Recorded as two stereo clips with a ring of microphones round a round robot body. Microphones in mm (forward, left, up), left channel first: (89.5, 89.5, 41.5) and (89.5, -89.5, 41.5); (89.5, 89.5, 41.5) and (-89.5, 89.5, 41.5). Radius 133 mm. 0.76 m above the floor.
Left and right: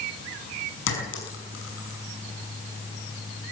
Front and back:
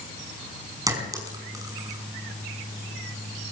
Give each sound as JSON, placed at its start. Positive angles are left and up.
{"t": 0.9, "sound": "a clink", "azimuth_deg": 110, "distance_m": 5.5}